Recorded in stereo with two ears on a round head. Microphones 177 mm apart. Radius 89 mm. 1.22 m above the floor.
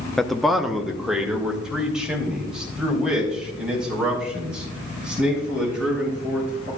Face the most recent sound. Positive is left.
turn(degrees=-5)  # may be behind; listen again after turning